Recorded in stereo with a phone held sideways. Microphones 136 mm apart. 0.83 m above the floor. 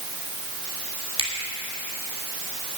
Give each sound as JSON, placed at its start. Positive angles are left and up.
{"t": 1.2, "sound": "a finger snap", "side_deg": -40, "distance_m": 2.5}